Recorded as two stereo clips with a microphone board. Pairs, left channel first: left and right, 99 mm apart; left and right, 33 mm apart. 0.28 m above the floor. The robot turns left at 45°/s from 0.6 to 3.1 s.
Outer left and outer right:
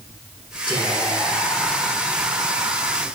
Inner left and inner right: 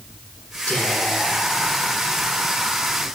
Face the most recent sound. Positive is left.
turn(degrees=-55)